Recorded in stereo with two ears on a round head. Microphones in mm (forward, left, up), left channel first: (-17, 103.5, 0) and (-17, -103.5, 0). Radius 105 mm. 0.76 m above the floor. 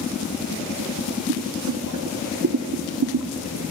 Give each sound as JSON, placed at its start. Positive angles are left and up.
{"t": 1.3, "sound": "boiling", "side_deg": -70, "distance_m": 0.9}